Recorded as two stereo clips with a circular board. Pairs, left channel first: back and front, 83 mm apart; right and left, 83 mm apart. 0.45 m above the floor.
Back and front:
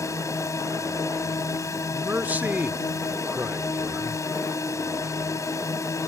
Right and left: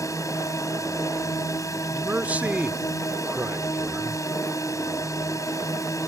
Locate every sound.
0.0 s a drone: 135° right
1.9 s a man speaking: 40° left